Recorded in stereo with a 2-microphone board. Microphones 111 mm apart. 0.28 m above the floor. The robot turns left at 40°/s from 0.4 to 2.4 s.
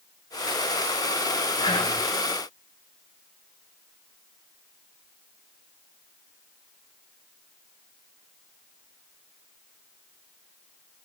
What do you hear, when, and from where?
1.6 s whispering: 50° left (ahead or behind), 1.7 m; by 2.0 s 55° left (ahead or behind), 1.7 m